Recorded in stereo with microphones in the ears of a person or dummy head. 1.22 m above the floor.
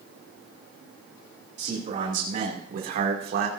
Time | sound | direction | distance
1.6 | a man speaking | 45° right (ahead or behind) | 3.5 m